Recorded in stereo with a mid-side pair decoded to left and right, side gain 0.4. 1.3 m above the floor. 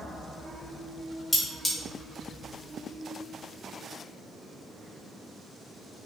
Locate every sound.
1.3 s cutlery clinking: 10° left, 1.3 m